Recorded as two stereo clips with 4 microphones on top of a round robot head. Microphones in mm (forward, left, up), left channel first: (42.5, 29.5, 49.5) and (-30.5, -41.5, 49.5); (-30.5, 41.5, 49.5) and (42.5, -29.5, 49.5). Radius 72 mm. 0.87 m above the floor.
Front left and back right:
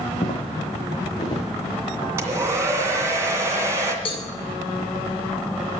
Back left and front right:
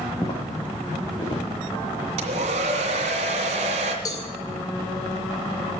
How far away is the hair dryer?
About 2.5 m.